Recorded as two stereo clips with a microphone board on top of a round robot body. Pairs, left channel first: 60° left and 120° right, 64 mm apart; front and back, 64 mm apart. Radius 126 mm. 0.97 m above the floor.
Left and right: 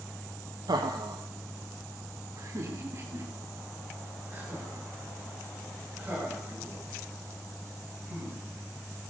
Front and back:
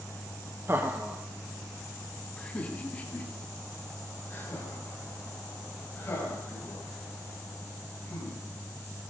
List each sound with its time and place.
0.7 s laughter: 130° right, 1.1 m; by 9.1 s 50° right, 7.5 m